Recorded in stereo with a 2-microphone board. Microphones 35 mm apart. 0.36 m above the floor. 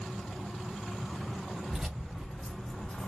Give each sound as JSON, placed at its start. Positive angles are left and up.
{"t": 1.7, "sound": "keys jangling", "side_deg": -10, "distance_m": 1.2}